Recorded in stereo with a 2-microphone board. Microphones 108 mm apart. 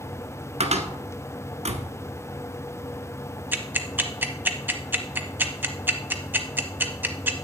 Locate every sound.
0.6 s a cupboard door: 65° right (ahead or behind), 1.1 m
3.5 s ticking: 15° right (ahead or behind), 0.9 m